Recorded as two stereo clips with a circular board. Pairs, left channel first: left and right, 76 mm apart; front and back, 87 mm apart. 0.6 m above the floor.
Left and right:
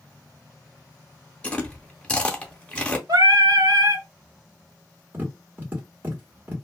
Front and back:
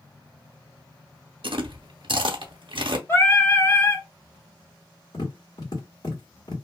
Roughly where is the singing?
Ahead right.